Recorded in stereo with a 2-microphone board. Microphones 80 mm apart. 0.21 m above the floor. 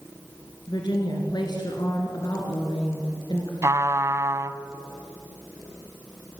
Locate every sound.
0.7 s a woman speaking: 65° left (ahead or behind), 3 m
3.6 s a trumpet: 40° right (ahead or behind), 0.8 m